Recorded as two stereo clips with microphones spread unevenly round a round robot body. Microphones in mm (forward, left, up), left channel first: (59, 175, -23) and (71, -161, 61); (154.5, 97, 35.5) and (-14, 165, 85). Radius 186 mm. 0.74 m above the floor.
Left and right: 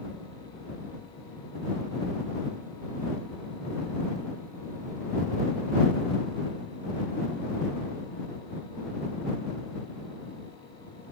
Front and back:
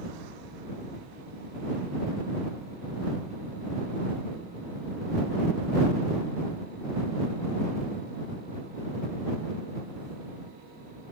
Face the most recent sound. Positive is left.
No sound to turn to.